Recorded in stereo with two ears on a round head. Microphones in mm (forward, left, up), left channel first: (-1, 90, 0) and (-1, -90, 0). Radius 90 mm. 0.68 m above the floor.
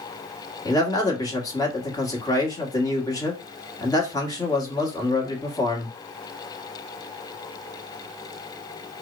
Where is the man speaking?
20° left (ahead or behind), 1.3 m.